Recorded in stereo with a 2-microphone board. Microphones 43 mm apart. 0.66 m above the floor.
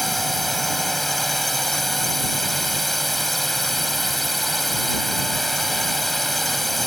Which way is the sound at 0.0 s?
Centre (ahead or behind).